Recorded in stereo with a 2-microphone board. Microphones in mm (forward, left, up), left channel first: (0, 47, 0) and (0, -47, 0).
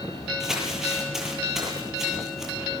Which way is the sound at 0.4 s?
5° right (ahead or behind).